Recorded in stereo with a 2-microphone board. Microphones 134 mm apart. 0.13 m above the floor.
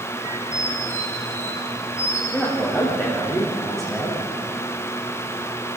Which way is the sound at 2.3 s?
Centre (ahead or behind).